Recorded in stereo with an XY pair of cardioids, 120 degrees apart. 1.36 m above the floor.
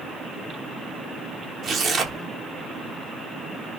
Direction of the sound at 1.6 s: 45° right.